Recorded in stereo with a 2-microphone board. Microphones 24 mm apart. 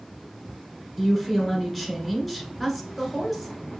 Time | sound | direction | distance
1.0 | a woman speaking | 5° left (ahead or behind) | 1.3 m